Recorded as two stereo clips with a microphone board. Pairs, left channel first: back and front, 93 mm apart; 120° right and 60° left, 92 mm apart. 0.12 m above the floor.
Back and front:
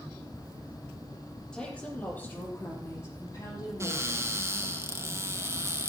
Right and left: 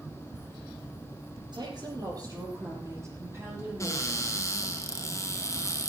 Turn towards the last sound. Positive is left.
turn(degrees=-60)